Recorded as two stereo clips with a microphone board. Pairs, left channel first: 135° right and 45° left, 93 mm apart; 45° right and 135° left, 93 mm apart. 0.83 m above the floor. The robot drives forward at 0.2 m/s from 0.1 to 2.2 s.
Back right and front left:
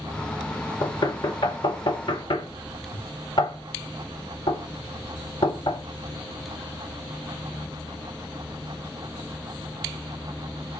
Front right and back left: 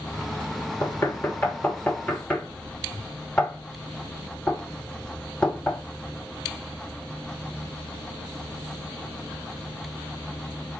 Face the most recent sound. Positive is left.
turn(degrees=-125)